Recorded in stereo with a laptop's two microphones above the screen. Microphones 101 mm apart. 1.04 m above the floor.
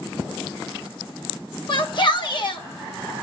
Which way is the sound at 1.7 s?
50° left (ahead or behind).